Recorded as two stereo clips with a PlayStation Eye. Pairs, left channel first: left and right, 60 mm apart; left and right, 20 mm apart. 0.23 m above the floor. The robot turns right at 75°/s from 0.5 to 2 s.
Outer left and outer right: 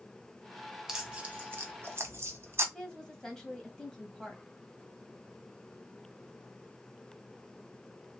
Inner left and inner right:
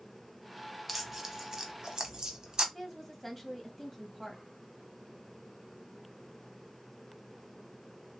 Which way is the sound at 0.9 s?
10° right (ahead or behind).